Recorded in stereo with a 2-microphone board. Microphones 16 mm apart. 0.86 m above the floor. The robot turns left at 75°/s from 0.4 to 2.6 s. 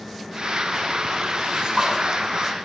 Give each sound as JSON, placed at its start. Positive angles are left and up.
{"t": 1.4, "sound": "a splash", "azimuth_deg": -90, "distance_m": 8.5}